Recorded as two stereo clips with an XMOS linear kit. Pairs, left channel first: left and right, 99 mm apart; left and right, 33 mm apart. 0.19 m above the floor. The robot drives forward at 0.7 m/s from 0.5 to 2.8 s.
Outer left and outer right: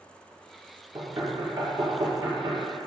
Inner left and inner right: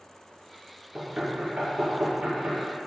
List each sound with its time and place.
0.9 s knocking: 40° right (ahead or behind), 2.5 m; by 2.6 s 30° right (ahead or behind), 3.5 m